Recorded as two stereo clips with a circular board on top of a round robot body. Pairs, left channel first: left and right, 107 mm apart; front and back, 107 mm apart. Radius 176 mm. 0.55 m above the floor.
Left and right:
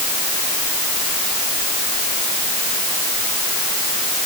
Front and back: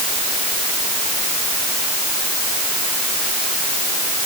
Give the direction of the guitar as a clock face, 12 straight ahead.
No guitar in this recording.